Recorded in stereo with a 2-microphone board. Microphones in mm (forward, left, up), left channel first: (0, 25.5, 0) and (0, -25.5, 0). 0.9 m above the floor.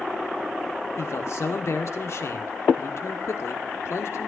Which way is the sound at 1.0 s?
65° left (ahead or behind).